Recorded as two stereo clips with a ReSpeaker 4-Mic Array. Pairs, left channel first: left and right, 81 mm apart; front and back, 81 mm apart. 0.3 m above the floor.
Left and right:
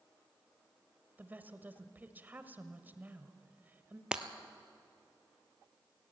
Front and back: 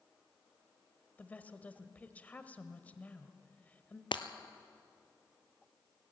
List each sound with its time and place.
1.2 s a woman speaking: 50° right, 1.2 m
4.1 s breaking glass: 10° right, 1.1 m